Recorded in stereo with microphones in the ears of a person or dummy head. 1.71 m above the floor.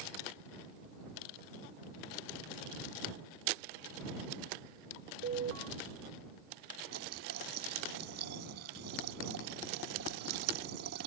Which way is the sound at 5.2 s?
50° right (ahead or behind).